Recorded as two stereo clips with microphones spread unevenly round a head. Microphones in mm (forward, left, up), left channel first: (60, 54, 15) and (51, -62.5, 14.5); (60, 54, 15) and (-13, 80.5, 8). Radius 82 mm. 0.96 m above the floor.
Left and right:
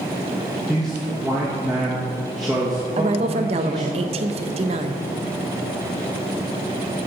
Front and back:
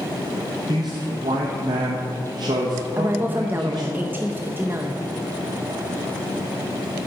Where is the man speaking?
Straight behind, 1.0 m.